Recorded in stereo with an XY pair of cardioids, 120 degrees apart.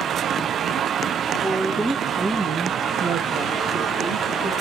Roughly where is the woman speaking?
Ahead.